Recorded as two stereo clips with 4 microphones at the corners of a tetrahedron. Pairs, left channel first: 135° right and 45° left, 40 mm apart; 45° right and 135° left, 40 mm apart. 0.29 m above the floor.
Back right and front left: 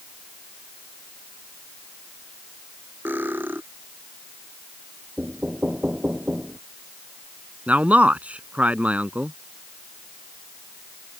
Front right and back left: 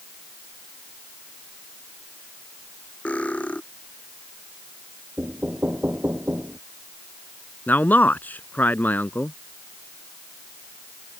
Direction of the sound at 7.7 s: 5° right.